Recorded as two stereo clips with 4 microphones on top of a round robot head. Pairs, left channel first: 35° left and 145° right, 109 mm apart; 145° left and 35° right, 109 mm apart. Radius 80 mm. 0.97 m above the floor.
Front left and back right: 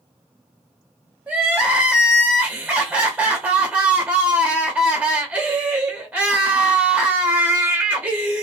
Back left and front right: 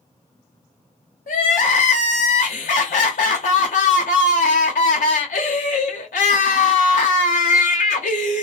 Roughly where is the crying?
Behind left.